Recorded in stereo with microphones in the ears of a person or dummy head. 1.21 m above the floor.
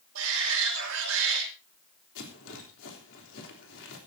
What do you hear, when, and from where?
0.1 s a shout: 85° right, 5 m
2.1 s a rattle: 65° left (ahead or behind), 3.5 m